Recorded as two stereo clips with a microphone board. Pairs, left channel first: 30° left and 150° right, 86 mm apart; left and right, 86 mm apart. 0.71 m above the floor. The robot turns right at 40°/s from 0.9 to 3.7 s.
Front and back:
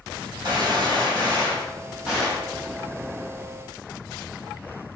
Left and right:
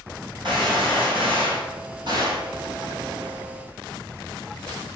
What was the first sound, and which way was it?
A gunshot, 115° right.